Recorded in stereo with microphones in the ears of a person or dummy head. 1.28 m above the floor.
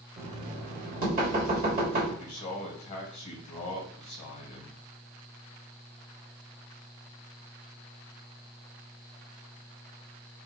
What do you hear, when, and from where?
0.2 s knocking: 35° right (ahead or behind), 1.5 m
2.2 s a man speaking: 40° left (ahead or behind), 1.0 m